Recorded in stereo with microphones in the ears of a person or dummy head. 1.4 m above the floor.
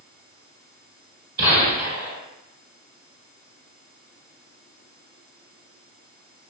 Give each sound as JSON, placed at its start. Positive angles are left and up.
{"t": 1.4, "sound": "a gunshot", "side_deg": -25, "distance_m": 1.7}